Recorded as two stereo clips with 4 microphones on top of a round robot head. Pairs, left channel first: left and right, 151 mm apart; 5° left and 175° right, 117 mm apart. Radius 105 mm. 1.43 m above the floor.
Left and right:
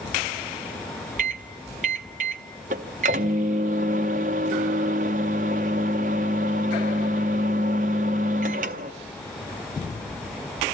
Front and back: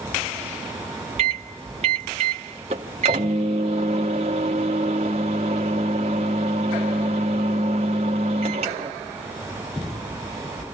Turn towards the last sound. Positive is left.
turn(degrees=-130)